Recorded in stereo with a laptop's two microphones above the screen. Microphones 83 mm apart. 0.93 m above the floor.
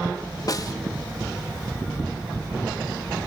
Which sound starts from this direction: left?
A snare drum, at 0.5 s.